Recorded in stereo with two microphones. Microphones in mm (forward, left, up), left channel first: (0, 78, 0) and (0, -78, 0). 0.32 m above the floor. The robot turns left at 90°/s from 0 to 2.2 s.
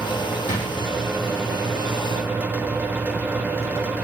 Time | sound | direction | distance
0.5 | a drawer | 50° left (ahead or behind) | 2.5 m